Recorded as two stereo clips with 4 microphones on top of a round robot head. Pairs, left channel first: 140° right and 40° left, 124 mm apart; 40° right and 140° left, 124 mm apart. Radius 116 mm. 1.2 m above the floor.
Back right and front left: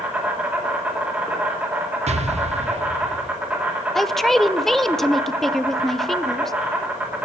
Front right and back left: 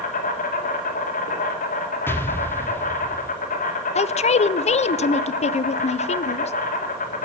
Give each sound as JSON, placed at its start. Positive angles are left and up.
{"t": 0.0, "sound": "an insect", "azimuth_deg": -40, "distance_m": 2.5}
{"t": 2.1, "sound": "an explosion", "azimuth_deg": 30, "distance_m": 1.0}
{"t": 4.0, "sound": "a man speaking", "azimuth_deg": -55, "distance_m": 0.5}